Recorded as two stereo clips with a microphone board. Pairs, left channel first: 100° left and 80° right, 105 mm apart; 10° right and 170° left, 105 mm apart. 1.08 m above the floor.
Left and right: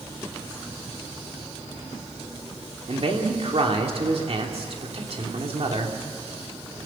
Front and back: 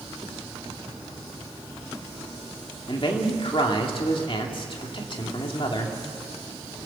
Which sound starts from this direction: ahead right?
A man speaking, at 2.9 s.